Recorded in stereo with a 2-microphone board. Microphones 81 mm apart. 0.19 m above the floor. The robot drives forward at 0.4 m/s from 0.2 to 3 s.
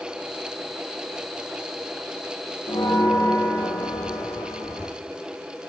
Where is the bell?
55° left (ahead or behind), 2.5 m; by 4.9 s 50° left (ahead or behind), 3 m.